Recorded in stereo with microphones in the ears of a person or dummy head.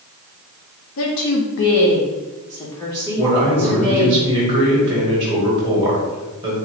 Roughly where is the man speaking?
Centre.